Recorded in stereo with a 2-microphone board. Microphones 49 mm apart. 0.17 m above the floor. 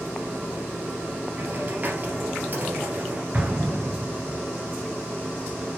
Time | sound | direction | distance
1.4 | a hiss | 40° right (ahead or behind) | 2.5 m
3.3 | an explosion | 30° right (ahead or behind) | 3 m